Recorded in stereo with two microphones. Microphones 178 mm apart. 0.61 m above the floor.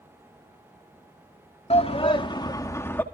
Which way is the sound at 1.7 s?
35° left (ahead or behind).